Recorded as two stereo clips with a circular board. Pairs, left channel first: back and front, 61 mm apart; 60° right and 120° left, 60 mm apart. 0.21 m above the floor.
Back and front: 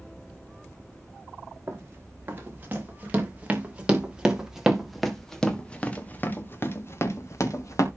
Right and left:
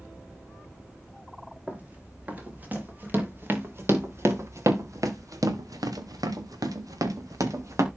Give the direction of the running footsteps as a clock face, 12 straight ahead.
10 o'clock.